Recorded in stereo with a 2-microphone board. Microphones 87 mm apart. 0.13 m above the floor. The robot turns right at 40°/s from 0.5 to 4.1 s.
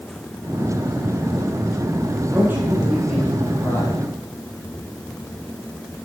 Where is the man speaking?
35° right, 4.5 m; by 4.0 s 35° left, 4.5 m.